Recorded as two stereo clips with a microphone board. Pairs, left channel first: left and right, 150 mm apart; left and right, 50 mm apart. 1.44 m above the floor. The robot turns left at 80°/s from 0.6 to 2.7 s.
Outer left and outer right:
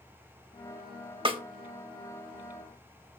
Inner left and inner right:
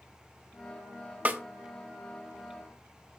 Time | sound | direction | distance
1.2 | a snare drum | 35° right (ahead or behind) | 1.1 m